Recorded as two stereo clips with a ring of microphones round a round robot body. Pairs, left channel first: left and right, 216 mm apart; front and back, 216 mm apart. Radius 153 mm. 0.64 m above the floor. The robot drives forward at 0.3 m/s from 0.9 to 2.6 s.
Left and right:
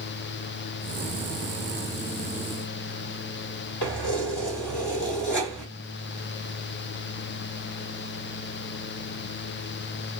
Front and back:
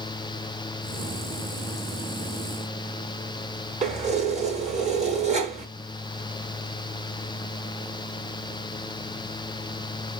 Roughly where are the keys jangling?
Behind left.